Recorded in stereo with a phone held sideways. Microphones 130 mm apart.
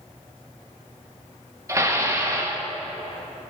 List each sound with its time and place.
1.7 s dishes clattering: 25° right (ahead or behind), 1.3 m